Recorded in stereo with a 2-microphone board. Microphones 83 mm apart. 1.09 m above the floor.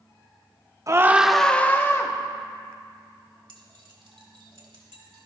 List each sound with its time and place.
0.9 s a scream: 40° right (ahead or behind), 0.9 m; by 2.1 s 35° left (ahead or behind), 1.7 m
3.5 s keys jangling: 85° right, 2.5 m